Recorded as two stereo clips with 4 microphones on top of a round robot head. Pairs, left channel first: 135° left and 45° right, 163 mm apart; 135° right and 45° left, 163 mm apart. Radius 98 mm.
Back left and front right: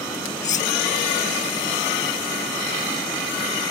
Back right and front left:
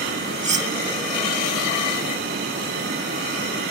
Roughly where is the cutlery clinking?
Left.